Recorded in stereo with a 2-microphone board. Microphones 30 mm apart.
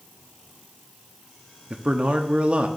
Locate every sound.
1.7 s a man speaking: 40° right (ahead or behind), 0.8 m